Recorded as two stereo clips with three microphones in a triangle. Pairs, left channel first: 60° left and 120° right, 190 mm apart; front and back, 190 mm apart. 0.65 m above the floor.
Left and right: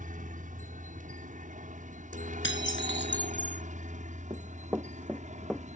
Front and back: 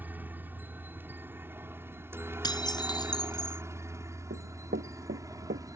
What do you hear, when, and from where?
0.0 s a helicopter: 105° right; by 5.8 s 120° right
2.4 s dishes clattering: 70° left
4.3 s running footsteps: 170° left; by 5.7 s 150° left